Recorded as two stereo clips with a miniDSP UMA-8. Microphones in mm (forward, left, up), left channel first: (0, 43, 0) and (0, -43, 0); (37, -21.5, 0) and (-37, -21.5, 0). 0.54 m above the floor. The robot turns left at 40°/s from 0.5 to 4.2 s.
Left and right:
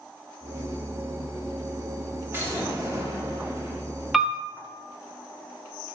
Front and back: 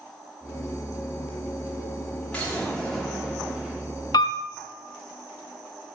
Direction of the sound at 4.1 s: Straight ahead.